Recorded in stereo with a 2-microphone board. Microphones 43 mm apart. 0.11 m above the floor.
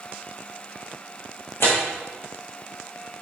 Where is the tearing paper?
80° left, 2.5 m.